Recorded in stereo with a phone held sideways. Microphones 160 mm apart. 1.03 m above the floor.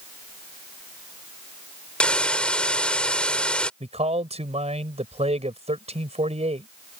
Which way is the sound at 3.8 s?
40° right (ahead or behind).